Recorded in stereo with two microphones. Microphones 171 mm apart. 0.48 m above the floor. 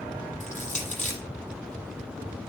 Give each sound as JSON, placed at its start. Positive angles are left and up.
{"t": 0.4, "sound": "crushing", "side_deg": 50, "distance_m": 7.0}